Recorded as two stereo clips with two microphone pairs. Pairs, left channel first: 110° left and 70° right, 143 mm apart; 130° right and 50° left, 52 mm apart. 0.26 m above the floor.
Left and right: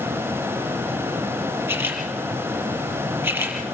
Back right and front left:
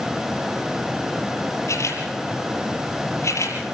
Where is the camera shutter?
140° right, 4.5 m.